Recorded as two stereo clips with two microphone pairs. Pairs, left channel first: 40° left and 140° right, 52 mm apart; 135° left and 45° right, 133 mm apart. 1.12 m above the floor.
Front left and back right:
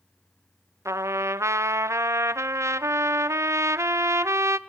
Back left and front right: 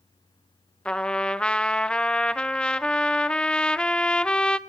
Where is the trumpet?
145° right, 0.8 m.